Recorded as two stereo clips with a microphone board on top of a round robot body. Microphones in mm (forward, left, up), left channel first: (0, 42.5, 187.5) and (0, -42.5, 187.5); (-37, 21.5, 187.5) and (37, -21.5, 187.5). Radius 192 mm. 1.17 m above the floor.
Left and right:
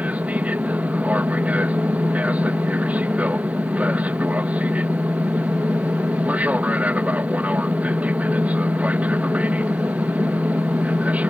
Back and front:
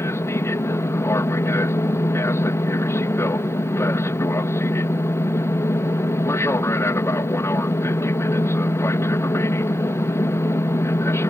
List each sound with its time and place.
0.0 s an aircraft: 160° right